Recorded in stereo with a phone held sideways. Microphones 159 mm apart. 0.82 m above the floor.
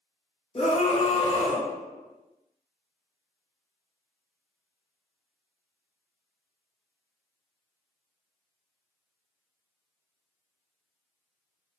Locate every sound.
0.6 s a scream: 40° left (ahead or behind), 0.8 m